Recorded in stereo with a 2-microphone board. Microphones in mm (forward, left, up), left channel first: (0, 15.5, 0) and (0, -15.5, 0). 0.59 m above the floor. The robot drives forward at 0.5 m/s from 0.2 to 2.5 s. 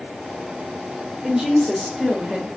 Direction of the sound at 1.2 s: 20° right (ahead or behind).